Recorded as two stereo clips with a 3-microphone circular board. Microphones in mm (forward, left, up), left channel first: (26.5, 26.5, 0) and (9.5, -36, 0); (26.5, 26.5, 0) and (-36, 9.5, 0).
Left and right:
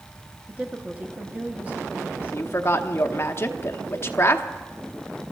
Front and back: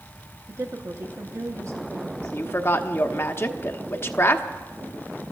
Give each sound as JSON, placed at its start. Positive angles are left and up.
{"t": 0.5, "sound": "a woman speaking", "azimuth_deg": -160, "distance_m": 1.0}
{"t": 2.2, "sound": "a woman speaking", "azimuth_deg": 45, "distance_m": 1.0}